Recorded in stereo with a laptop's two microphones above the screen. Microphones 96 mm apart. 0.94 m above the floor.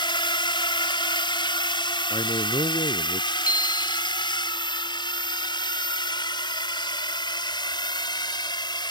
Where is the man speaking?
65° left (ahead or behind).